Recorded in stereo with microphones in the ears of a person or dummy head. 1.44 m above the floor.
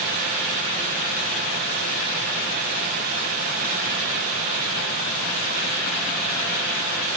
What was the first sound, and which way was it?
Only background noise.